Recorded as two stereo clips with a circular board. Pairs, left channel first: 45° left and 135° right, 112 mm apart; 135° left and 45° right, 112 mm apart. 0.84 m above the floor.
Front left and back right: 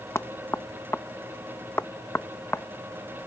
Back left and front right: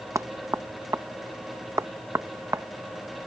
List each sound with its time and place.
0.1 s knocking: 5° right